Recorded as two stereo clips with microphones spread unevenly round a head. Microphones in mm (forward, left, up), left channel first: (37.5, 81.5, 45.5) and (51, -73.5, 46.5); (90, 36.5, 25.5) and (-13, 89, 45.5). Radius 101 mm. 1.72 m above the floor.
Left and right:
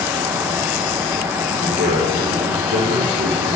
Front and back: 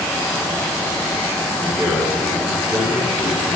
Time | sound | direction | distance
1.6 | a man speaking | 125° right | 6.5 m